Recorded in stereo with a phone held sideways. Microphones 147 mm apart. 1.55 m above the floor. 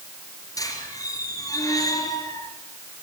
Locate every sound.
0.6 s a squeak: 25° left (ahead or behind), 4.5 m